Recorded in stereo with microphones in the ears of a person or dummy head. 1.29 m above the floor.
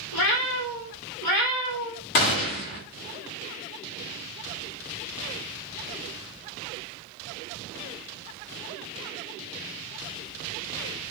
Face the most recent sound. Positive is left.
turn(degrees=50)  # may be behind; listen again after turning